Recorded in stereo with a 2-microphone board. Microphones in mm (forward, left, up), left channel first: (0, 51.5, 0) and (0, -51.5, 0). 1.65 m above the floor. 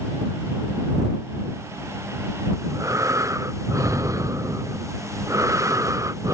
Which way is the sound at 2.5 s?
30° right (ahead or behind).